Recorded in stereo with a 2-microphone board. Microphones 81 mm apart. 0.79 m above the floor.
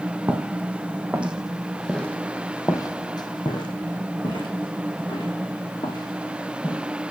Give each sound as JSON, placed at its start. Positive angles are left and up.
{"t": 0.3, "sound": "footsteps", "side_deg": -30, "distance_m": 2.0}